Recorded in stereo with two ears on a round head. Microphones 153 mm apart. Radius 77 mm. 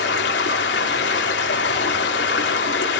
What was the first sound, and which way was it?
Running water, 70° left (ahead or behind).